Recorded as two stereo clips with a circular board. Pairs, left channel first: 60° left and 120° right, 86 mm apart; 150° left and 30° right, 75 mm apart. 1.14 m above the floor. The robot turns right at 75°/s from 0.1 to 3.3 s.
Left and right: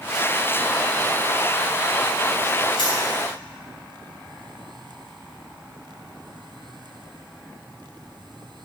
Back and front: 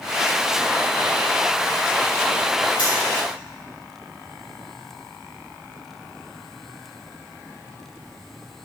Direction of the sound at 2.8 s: 45° left.